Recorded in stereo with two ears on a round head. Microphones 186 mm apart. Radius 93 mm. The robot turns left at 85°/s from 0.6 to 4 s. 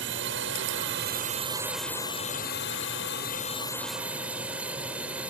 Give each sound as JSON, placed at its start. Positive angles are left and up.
{"t": 0.0, "sound": "a drone", "azimuth_deg": -80}